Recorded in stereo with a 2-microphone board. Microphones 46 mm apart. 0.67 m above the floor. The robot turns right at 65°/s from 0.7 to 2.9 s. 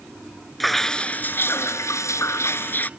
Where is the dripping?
Straight ahead; by 2.9 s 145° left.